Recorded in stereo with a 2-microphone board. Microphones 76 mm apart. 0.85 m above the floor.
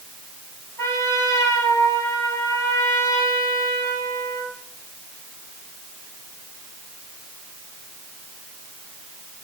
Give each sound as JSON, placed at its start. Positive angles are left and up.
{"t": 0.8, "sound": "a trumpet", "side_deg": 40, "distance_m": 7.5}